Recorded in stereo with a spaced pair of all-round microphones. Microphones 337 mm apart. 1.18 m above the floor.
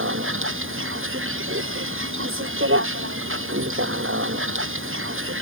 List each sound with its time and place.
0.0 s a vehicle: 35° right (ahead or behind)